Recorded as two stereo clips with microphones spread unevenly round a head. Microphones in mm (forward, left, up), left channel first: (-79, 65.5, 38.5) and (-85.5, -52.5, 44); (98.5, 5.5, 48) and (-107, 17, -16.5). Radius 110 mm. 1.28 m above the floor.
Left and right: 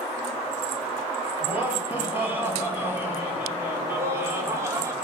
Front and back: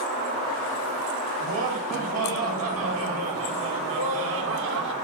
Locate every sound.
1.4 s laughter: 165° right, 9.5 m; by 5.0 s 155° right, 4 m